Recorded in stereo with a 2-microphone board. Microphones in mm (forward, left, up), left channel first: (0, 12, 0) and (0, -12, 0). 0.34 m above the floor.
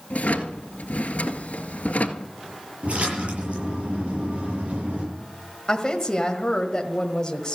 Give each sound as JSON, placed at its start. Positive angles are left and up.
{"t": 0.1, "sound": "a drawer", "side_deg": 90, "distance_m": 1.4}
{"t": 2.8, "sound": "a splash", "side_deg": -60, "distance_m": 8.0}
{"t": 5.7, "sound": "a woman speaking", "side_deg": 30, "distance_m": 1.4}